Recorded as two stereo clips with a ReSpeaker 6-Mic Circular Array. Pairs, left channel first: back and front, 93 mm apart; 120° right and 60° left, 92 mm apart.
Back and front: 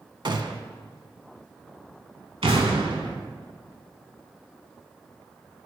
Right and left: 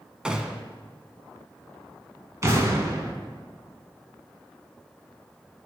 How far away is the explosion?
About 0.9 m.